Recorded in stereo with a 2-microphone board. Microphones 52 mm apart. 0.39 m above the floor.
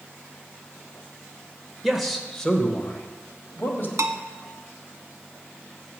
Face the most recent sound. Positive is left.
turn(degrees=-80)